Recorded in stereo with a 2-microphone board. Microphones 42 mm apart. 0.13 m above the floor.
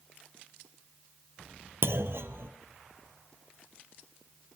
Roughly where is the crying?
I don't hear crying.